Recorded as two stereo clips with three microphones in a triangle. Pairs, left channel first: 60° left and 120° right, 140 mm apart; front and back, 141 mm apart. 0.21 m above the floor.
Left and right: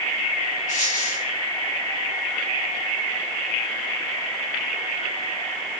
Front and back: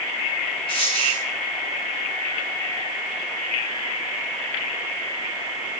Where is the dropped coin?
50° left, 8.5 m.